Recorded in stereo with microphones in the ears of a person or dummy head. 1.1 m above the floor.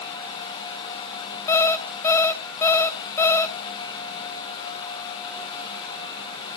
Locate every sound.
1.5 s an alarm clock: 15° left (ahead or behind), 0.9 m